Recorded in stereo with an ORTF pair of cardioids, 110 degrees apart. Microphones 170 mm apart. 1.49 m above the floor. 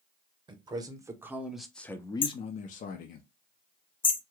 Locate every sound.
0.5 s a man speaking: 30° right, 1.1 m; by 3.2 s 75° left, 0.8 m
2.2 s hammering: 30° left, 0.6 m